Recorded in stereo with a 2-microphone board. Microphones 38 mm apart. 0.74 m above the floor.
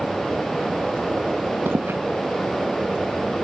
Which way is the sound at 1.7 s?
70° right (ahead or behind).